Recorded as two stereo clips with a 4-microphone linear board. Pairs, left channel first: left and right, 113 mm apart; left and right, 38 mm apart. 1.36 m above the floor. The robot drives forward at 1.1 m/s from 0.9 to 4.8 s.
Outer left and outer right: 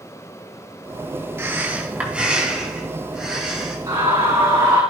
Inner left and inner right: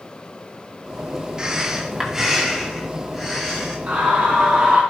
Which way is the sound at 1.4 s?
20° right (ahead or behind).